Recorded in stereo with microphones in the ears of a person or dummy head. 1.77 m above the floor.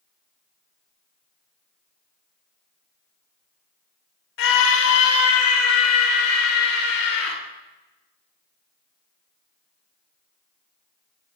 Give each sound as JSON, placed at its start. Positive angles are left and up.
{"t": 4.4, "sound": "a scream", "side_deg": 65, "distance_m": 1.8}